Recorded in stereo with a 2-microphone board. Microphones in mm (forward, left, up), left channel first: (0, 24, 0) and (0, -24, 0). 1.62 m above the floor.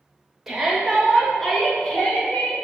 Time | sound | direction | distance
0.5 | a shout | 10° right (ahead or behind) | 2.5 m